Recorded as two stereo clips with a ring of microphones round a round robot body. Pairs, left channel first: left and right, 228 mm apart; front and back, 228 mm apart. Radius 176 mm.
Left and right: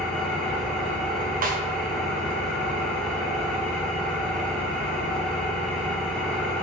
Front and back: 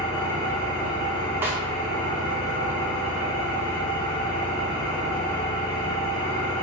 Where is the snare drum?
105° right, 0.5 m.